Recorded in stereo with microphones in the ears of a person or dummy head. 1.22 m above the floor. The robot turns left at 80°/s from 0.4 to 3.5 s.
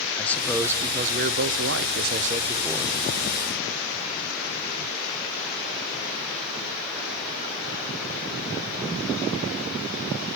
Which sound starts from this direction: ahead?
A man speaking, at 0.2 s.